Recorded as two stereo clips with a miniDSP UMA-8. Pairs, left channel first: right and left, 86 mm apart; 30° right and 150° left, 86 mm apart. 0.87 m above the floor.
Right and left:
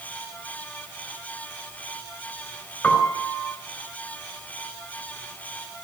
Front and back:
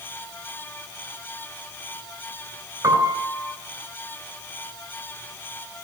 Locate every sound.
2.8 s a piano: 165° right, 3.5 m